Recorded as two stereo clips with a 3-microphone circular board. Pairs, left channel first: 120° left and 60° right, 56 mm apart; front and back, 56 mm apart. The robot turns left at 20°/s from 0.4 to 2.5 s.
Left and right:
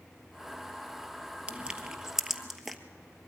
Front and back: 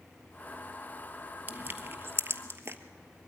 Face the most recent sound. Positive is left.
turn(degrees=-150)